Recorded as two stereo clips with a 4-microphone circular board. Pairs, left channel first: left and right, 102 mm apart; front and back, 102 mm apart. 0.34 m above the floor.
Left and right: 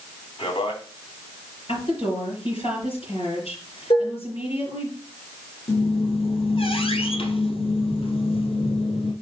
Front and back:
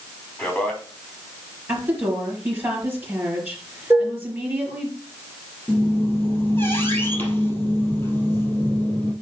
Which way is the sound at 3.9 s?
120° left.